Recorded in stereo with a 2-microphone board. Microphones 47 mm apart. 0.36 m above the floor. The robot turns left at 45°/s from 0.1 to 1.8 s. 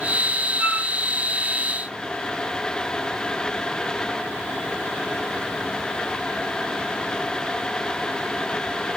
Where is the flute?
30° right (ahead or behind), 5 m; by 0.9 s 45° right (ahead or behind), 5 m.